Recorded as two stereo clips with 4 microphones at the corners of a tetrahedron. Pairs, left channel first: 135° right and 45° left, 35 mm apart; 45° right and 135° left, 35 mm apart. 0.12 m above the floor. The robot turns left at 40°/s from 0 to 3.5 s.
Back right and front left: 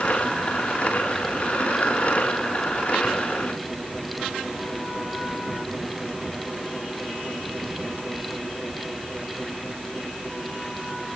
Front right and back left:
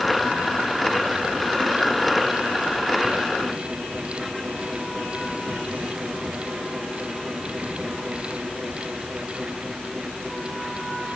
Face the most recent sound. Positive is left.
No sound to turn to.